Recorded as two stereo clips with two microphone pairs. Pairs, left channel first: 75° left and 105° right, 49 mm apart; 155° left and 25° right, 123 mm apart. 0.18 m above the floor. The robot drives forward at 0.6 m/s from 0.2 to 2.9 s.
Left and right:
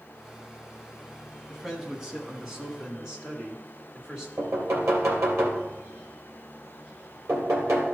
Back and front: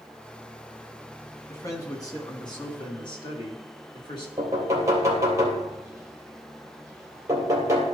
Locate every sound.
1.5 s a man speaking: 175° right, 1.6 m
4.4 s knocking: 85° right, 2.5 m